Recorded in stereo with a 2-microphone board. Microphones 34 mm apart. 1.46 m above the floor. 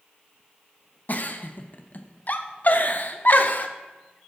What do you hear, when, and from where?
1.1 s a giggle: 45° left (ahead or behind), 0.7 m